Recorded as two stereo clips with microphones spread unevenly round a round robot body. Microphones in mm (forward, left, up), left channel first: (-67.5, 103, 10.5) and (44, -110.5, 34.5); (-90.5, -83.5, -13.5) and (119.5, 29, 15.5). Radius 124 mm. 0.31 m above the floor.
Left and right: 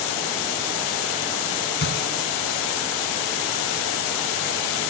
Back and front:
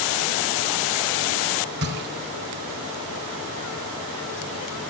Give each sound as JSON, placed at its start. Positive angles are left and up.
{"t": 1.8, "sound": "a gunshot", "azimuth_deg": 75, "distance_m": 3.5}